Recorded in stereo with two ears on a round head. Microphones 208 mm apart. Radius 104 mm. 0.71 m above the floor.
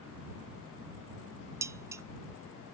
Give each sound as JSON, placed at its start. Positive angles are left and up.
{"t": 1.6, "sound": "dishes clattering", "side_deg": -15}